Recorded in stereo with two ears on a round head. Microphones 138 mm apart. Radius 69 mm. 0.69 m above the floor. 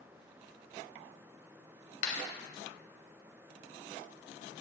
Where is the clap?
55° left (ahead or behind), 2.5 m.